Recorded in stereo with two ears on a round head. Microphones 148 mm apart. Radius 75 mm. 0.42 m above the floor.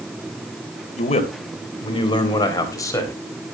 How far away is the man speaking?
About 2.5 m.